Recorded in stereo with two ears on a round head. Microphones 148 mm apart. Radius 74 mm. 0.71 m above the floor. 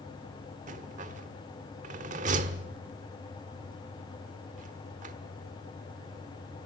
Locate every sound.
0.7 s a rattle: 50° right (ahead or behind), 1.3 m